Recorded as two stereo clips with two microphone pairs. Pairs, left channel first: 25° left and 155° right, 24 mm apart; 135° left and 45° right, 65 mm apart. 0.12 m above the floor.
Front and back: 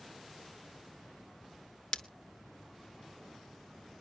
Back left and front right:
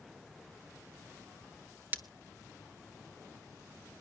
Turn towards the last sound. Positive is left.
turn(degrees=5)